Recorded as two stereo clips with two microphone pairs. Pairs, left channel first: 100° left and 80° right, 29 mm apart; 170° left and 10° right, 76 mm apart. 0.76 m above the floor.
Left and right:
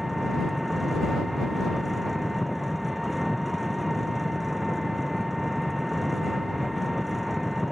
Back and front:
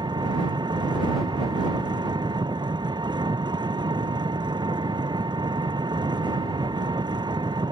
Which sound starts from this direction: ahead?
An engine running, at 0.0 s.